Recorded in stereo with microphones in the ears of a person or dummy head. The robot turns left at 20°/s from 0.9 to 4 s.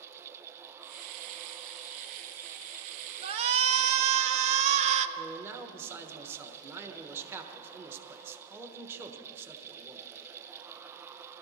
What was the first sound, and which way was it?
A shout, 25° right (ahead or behind).